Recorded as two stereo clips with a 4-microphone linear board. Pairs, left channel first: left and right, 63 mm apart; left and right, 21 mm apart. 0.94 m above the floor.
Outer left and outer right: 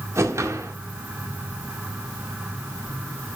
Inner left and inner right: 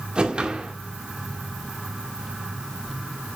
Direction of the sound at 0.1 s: 50° right (ahead or behind).